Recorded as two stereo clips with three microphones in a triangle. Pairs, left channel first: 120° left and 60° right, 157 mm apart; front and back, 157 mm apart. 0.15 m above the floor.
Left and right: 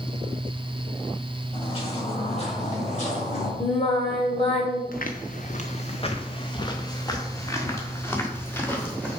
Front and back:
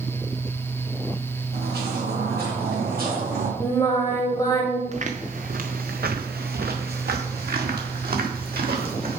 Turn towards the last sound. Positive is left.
turn(degrees=-160)